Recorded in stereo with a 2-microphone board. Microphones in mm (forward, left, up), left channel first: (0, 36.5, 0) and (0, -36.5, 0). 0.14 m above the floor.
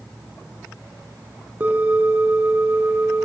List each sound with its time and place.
1.6 s a bell: 25° right (ahead or behind), 0.8 m